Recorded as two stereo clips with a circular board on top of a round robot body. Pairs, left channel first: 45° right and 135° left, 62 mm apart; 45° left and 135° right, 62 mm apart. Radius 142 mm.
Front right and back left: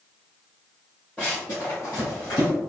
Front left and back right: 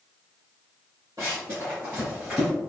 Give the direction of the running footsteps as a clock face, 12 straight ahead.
4 o'clock.